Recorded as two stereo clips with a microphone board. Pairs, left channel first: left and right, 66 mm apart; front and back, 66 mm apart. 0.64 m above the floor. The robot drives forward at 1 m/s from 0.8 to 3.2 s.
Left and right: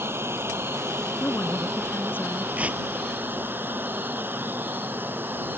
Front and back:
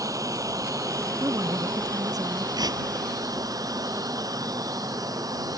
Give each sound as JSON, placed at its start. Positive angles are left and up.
{"t": 0.0, "sound": "running water", "azimuth_deg": -145}
{"t": 1.2, "sound": "a woman speaking", "azimuth_deg": 145}
{"t": 2.6, "sound": "tearing paper", "azimuth_deg": -160}